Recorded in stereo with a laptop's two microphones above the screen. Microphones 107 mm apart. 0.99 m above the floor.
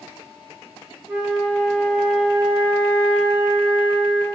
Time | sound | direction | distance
1.1 | a flute | 10° right (ahead or behind) | 1.6 m